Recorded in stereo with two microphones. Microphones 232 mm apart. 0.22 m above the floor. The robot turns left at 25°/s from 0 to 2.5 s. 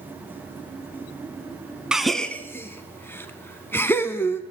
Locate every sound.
1.9 s a gasp: 5° right (ahead or behind), 0.5 m; by 4.4 s 10° left (ahead or behind), 0.5 m